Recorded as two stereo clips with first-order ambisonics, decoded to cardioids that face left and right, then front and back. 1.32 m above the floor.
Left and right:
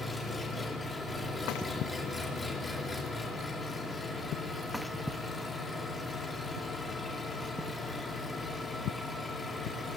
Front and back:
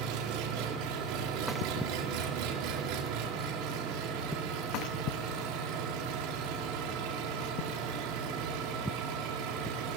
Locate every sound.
0.0 s an engine running: 170° left, 3 m